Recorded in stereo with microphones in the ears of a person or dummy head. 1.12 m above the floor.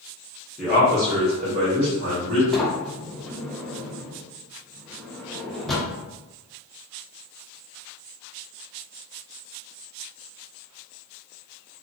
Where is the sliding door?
Centre (ahead or behind), 0.6 m.